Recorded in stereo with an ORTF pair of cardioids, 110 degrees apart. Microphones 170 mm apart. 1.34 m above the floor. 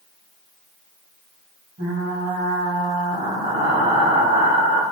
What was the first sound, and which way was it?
Frying, 45° right.